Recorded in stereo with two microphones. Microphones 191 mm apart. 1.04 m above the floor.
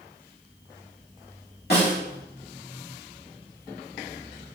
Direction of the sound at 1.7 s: 55° left (ahead or behind).